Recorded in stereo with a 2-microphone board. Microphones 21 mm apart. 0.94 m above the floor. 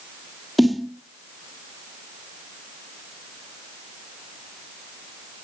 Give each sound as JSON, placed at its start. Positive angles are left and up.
{"t": 0.6, "sound": "a snare drum", "side_deg": 0, "distance_m": 1.2}